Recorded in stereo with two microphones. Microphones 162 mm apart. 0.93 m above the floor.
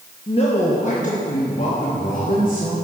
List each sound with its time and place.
0.3 s a man speaking: 35° left (ahead or behind), 1.0 m; by 2.8 s 60° left (ahead or behind), 2.5 m